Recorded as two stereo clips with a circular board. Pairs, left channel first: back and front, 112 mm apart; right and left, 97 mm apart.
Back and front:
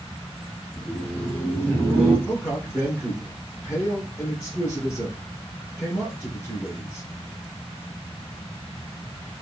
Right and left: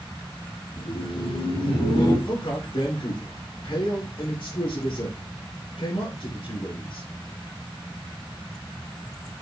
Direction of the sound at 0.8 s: 100° right.